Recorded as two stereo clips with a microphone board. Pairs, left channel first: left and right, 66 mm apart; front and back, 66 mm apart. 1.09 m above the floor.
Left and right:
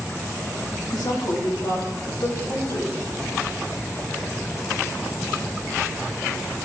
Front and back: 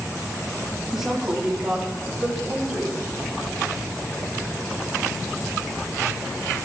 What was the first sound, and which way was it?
A woman speaking, 100° left.